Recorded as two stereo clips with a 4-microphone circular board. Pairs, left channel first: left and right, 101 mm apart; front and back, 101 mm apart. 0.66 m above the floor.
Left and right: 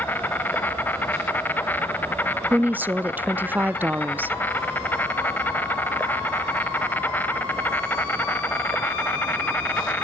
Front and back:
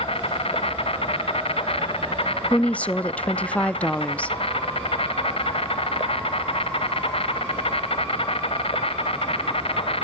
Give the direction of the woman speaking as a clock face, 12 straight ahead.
2 o'clock.